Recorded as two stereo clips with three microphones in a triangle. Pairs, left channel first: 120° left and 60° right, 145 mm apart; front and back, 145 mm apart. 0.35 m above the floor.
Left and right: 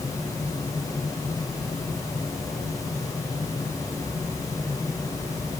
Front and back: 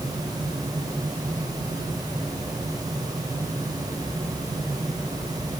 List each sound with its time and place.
Only background noise.